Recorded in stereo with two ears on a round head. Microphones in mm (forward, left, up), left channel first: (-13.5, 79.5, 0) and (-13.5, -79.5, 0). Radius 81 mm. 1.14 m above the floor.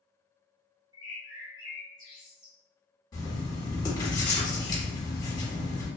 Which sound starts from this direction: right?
A bird, at 0.9 s.